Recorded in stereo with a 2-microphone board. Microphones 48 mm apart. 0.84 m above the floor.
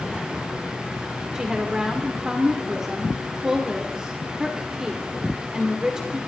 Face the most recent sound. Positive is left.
turn(degrees=-15)  # may be behind; listen again after turning